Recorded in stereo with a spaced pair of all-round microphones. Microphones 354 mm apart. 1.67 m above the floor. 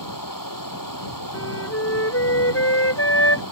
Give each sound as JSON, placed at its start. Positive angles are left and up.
{"t": 0.0, "sound": "running water", "side_deg": 65}
{"t": 1.3, "sound": "a flute", "side_deg": 40}